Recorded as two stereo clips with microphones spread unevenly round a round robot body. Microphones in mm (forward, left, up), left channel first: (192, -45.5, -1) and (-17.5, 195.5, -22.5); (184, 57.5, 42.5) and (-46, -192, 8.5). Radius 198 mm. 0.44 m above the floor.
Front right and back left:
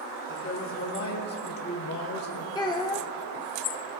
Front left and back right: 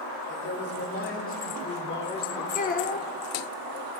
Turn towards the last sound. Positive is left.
turn(degrees=15)